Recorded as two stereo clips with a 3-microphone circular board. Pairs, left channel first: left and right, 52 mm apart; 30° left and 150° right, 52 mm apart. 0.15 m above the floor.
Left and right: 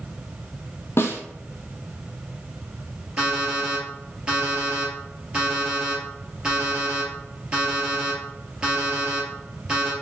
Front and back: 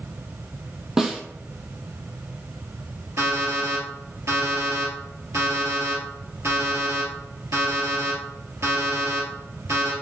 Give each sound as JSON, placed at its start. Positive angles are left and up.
{"t": 1.0, "sound": "a snare drum", "azimuth_deg": 130, "distance_m": 0.8}
{"t": 3.2, "sound": "an alarm clock", "azimuth_deg": -160, "distance_m": 2.0}